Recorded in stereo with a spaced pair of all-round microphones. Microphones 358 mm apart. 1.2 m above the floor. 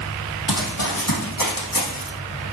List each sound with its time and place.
0.5 s running footsteps: 65° left (ahead or behind), 3 m; by 2.1 s 70° left (ahead or behind), 4.5 m